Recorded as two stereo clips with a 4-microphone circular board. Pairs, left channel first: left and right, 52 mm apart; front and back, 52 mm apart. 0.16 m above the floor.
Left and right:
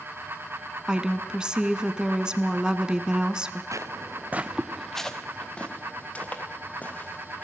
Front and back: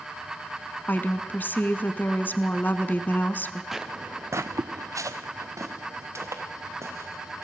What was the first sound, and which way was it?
A woman speaking, 25° right.